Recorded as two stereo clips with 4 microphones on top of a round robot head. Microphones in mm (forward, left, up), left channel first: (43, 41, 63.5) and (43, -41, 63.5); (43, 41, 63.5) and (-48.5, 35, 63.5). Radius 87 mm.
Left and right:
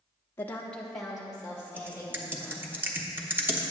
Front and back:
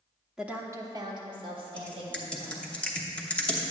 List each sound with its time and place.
0.4 s a woman speaking: 100° left, 0.8 m; by 2.8 s 165° right, 3 m
1.8 s typing on a keyboard: 60° right, 1.0 m